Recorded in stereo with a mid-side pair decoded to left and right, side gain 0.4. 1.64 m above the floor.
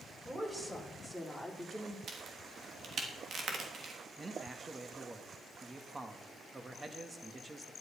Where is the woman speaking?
20° right, 5.5 m; by 2.0 s 5° left, 3.5 m.